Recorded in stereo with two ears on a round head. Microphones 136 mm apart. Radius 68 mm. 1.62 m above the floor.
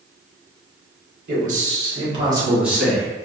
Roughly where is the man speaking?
Right.